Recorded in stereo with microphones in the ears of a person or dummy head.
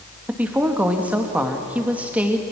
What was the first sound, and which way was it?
A woman speaking, 5° right (ahead or behind).